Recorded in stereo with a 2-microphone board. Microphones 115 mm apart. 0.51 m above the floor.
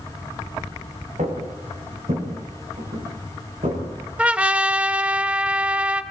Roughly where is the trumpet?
Centre.